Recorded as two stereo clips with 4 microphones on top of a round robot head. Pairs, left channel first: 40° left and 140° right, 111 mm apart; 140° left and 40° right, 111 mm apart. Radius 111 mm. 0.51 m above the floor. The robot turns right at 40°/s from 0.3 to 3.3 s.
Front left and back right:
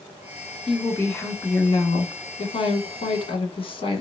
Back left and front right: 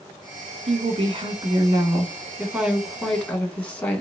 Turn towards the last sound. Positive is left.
turn(degrees=60)